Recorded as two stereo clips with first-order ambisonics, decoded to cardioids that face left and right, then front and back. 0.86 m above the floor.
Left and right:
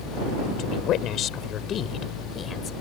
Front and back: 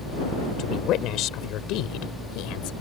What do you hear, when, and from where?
0.6 s a woman speaking: 45° left; by 2.7 s 25° left